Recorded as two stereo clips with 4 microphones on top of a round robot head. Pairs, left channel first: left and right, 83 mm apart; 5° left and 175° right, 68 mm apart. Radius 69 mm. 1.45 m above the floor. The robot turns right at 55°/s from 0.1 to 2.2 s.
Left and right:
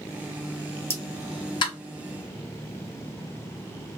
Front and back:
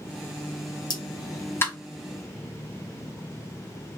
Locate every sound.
0.9 s a pop: 25° left, 1.0 m; by 1.8 s 70° left, 1.0 m